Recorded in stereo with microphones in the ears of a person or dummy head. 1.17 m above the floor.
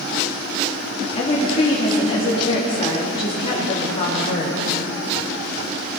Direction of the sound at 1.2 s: 25° left (ahead or behind).